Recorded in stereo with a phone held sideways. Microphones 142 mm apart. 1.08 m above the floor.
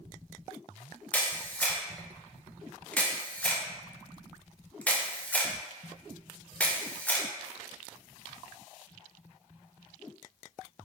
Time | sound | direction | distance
1.1 | a camera shutter | 10° left (ahead or behind) | 0.5 m